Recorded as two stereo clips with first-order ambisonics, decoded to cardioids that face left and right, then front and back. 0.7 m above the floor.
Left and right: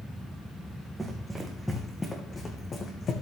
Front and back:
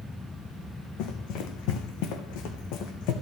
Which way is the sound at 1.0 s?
15° right.